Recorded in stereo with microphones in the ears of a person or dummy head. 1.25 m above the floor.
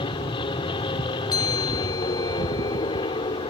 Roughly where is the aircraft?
Left.